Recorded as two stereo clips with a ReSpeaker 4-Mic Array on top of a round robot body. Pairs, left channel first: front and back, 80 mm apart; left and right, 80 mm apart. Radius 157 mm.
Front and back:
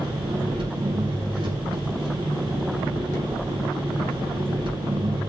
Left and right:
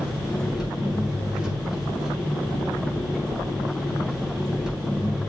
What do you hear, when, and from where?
0.0 s an engine running: 170° right, 5 m